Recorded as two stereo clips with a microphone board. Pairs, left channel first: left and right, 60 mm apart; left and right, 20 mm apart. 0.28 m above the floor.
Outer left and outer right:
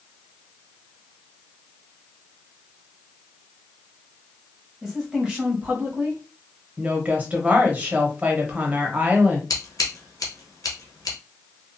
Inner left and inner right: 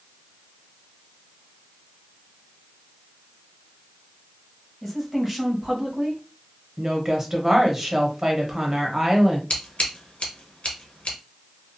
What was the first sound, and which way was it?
A woman speaking, 5° right (ahead or behind).